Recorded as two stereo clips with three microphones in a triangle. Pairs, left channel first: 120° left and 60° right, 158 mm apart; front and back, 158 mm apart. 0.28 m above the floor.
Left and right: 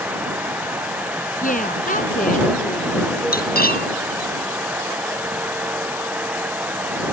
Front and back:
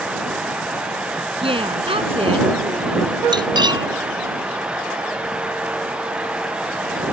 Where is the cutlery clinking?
120° left.